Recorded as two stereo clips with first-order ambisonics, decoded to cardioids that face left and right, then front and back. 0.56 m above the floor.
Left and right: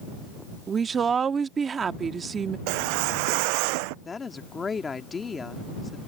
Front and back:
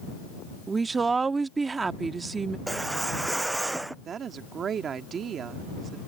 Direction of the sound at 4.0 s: 150° left.